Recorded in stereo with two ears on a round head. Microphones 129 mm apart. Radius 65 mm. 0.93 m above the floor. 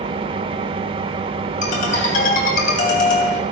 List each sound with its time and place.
0.0 s an engine running: 35° right (ahead or behind), 0.9 m
1.6 s a ringtone: 55° left (ahead or behind), 3 m